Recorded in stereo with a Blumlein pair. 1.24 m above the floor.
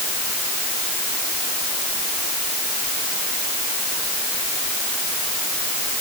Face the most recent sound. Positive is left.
No sound to turn to.